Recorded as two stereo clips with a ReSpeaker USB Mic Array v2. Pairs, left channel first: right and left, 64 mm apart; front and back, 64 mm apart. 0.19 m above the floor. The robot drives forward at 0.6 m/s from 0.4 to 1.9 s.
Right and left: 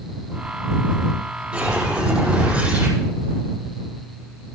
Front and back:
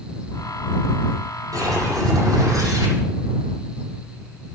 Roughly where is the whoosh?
Behind.